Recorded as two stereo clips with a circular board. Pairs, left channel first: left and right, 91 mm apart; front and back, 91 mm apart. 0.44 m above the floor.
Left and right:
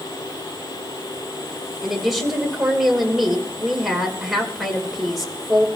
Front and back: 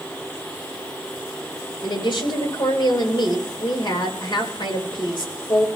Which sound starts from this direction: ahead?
A woman speaking, at 1.8 s.